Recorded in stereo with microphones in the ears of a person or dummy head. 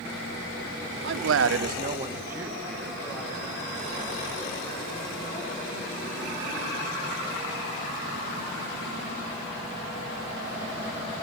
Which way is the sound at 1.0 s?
70° right (ahead or behind).